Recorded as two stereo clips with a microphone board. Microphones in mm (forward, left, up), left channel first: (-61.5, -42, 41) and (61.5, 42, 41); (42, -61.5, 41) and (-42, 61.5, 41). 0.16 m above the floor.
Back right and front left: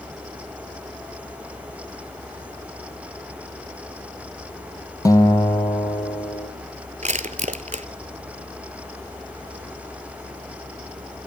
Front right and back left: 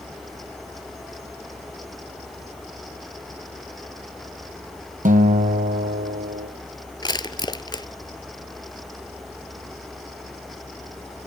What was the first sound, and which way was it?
A guitar, 150° left.